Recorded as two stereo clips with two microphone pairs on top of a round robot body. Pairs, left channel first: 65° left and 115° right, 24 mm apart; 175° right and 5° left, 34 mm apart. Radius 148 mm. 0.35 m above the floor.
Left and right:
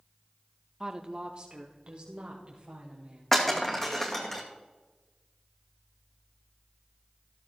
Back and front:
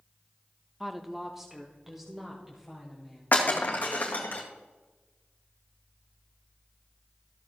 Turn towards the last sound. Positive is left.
turn(degrees=145)